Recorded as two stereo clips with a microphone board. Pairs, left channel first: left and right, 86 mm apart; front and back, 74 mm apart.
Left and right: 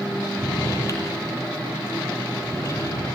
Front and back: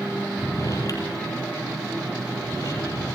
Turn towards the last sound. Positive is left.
turn(degrees=40)